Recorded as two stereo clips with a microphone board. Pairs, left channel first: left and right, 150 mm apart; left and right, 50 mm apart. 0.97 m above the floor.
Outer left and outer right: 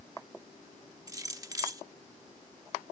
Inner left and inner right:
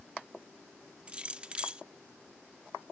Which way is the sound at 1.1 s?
25° right (ahead or behind).